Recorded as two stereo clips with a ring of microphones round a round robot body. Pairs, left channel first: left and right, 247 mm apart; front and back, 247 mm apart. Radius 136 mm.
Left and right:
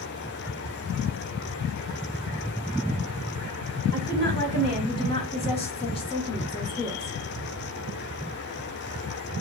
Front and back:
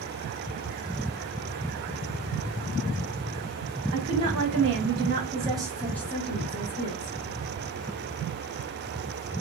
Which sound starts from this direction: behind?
A woman speaking, at 3.9 s.